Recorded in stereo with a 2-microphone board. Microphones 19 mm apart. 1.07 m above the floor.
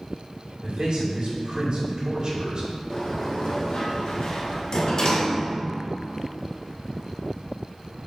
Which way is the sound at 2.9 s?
40° left (ahead or behind).